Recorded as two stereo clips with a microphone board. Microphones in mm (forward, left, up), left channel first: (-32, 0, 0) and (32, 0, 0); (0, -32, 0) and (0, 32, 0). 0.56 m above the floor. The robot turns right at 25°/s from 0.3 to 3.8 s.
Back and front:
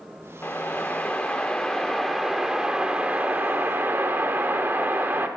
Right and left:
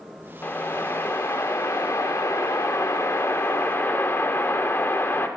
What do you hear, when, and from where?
0.4 s a whoosh: 135° right, 1.2 m; by 5.3 s 50° right, 1.2 m